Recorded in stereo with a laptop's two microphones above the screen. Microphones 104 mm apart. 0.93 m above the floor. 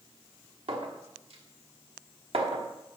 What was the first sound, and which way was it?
A clink, 75° right (ahead or behind).